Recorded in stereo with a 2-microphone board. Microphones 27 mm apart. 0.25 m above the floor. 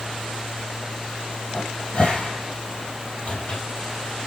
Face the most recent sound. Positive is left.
turn(degrees=45)  # may be behind; listen again after turning